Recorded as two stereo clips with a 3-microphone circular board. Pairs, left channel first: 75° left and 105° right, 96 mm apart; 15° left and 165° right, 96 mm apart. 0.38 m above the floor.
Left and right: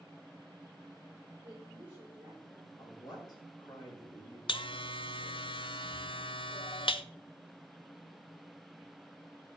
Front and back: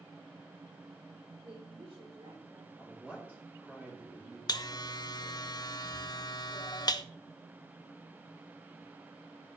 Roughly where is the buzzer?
Ahead left.